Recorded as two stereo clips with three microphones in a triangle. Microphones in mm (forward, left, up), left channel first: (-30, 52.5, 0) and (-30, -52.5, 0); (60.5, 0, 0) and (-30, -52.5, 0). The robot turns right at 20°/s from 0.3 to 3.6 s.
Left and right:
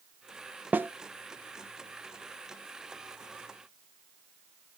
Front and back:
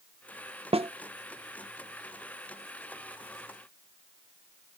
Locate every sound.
0.7 s a snare drum: 165° right, 0.5 m; by 0.9 s 160° right, 0.5 m